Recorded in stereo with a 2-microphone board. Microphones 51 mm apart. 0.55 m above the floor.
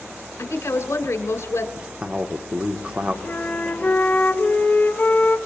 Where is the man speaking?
25° right (ahead or behind), 1.0 m.